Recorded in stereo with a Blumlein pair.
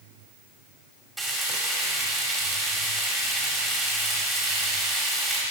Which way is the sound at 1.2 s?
Straight ahead.